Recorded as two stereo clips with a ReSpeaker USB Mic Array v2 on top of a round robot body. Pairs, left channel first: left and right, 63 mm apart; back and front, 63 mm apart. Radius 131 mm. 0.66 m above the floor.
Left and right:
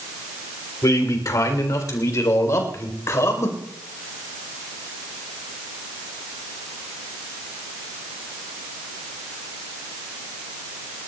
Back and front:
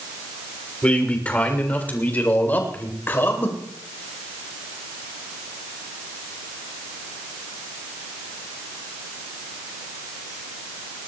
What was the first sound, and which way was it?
A man speaking, 110° left.